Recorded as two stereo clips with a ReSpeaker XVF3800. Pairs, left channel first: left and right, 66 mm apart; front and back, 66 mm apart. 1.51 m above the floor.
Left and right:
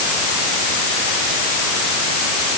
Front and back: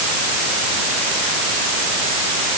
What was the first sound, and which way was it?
Only background noise.